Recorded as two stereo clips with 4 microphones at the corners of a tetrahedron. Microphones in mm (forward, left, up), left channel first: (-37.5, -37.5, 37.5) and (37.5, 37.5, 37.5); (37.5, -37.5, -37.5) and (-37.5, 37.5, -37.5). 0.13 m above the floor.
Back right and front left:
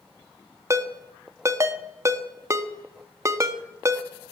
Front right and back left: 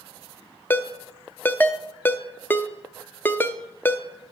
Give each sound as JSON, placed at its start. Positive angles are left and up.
{"t": 0.7, "sound": "a ringtone", "azimuth_deg": 10, "distance_m": 0.6}